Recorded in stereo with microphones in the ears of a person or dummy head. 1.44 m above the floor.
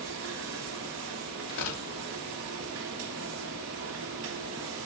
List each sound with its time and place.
0.0 s a machine running: 65° right (ahead or behind), 1.7 m
1.5 s tearing paper: 70° left (ahead or behind), 2.5 m